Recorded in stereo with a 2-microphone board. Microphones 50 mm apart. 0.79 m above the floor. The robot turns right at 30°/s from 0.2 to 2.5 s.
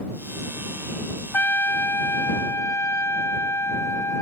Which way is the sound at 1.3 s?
45° left.